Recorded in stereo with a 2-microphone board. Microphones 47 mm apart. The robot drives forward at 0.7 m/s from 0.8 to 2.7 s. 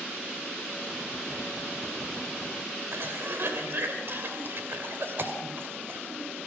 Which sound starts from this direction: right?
A cough, at 2.9 s.